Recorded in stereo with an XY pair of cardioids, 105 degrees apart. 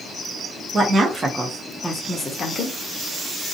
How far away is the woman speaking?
About 0.9 m.